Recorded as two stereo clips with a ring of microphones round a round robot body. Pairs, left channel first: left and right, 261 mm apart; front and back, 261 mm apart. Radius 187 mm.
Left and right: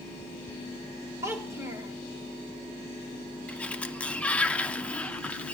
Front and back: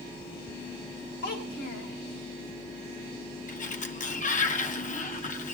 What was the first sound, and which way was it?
A child speaking, 10° right.